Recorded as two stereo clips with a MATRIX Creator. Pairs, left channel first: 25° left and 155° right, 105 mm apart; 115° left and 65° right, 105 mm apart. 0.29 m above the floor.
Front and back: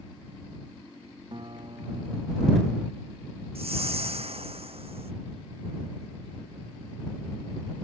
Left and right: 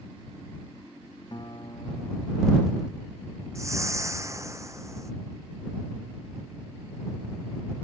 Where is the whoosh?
130° right.